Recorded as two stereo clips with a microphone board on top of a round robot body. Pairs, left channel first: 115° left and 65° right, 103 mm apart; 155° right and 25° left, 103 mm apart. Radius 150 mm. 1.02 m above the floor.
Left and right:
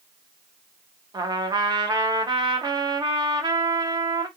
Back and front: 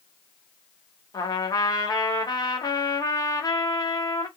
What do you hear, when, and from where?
1.1 s a trumpet: 110° right, 0.8 m